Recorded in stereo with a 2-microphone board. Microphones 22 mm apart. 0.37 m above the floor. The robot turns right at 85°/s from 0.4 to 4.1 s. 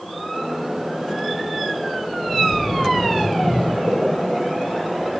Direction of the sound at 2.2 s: 105° left.